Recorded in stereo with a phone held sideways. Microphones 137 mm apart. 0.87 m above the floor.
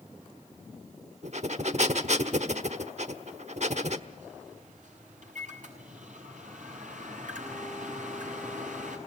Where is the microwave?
65° right (ahead or behind), 7 m.